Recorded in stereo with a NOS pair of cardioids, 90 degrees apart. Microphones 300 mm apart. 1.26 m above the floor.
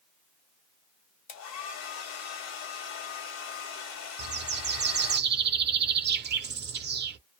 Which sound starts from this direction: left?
A hair dryer, at 1.3 s.